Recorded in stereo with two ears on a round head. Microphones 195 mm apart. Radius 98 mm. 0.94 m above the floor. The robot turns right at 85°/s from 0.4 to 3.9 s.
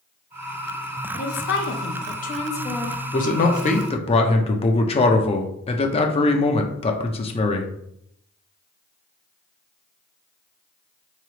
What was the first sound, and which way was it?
A woman speaking, 40° left.